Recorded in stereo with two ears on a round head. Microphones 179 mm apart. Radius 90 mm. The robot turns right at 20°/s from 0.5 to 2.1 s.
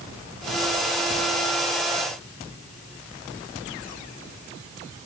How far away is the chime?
I don't hear a chime.